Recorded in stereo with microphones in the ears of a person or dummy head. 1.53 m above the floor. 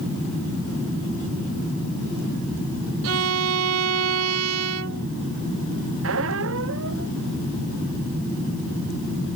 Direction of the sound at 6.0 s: 75° right (ahead or behind).